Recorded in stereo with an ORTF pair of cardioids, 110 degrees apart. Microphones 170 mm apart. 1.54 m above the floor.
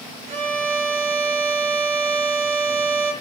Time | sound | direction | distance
0.3 | a violin | 40° right | 1.4 m